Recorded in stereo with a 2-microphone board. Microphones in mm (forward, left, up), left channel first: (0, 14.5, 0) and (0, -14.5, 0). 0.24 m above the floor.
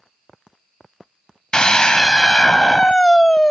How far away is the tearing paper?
No tearing paper in this recording.